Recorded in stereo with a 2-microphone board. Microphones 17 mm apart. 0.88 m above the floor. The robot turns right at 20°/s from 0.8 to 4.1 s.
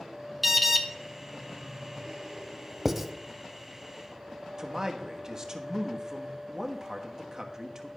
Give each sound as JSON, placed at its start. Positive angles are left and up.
{"t": 0.4, "sound": "an alarm", "side_deg": 0, "distance_m": 1.0}
{"t": 2.9, "sound": "writing", "side_deg": -20, "distance_m": 0.7}
{"t": 4.6, "sound": "a man speaking", "side_deg": -30, "distance_m": 1.2}